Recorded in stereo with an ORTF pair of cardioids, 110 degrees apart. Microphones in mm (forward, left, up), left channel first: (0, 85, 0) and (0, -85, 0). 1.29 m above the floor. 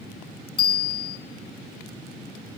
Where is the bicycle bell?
25° left, 8 m.